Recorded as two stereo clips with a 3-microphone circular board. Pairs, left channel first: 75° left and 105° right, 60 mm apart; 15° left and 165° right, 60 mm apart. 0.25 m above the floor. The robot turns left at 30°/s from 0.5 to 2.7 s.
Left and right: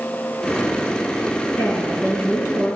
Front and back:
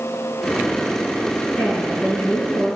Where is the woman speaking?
55° left, 3 m; by 2.8 s 25° left, 3 m.